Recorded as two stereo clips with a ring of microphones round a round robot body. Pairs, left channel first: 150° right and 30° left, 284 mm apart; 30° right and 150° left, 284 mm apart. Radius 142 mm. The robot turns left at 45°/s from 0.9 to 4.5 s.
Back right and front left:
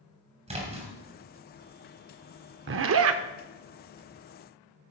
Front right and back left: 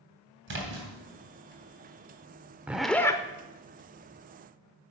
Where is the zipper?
65° left, 0.5 m; by 3.2 s 40° left, 0.5 m.